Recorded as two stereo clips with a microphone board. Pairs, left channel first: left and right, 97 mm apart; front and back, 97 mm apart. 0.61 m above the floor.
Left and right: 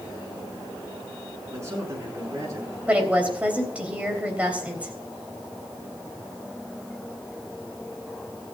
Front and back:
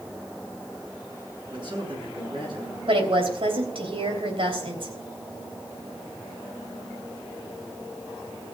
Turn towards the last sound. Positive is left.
turn(degrees=-165)